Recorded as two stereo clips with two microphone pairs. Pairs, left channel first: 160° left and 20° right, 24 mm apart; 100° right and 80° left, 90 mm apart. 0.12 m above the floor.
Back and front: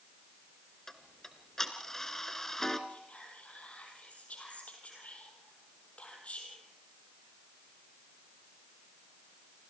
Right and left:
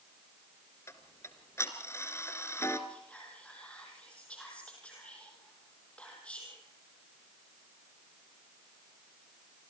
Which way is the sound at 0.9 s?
140° right.